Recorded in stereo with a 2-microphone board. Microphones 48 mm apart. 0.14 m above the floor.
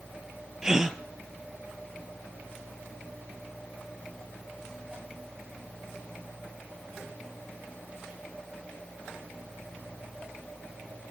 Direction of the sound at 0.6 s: 10° right (ahead or behind).